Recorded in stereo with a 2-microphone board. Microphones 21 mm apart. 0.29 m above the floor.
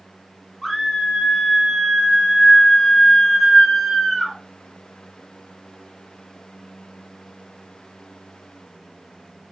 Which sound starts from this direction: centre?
A scream, at 0.6 s.